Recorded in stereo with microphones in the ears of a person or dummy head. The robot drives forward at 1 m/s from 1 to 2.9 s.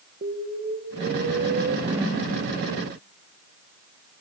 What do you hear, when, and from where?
0.2 s an explosion: 50° right (ahead or behind), 1.8 m; by 1.8 s 75° right (ahead or behind), 1.4 m
1.9 s a whoosh: 25° right (ahead or behind), 3 m